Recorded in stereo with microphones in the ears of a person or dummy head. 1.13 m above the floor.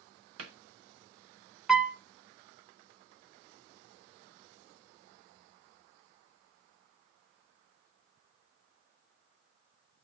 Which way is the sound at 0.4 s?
85° right.